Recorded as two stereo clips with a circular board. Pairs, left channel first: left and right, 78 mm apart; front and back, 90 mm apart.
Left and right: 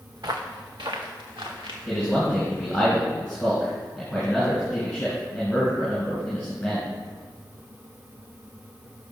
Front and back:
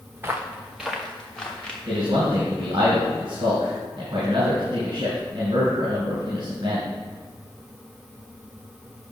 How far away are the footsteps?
About 1.2 m.